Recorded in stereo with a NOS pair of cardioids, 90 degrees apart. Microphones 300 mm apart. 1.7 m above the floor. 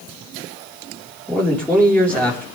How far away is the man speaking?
About 4 m.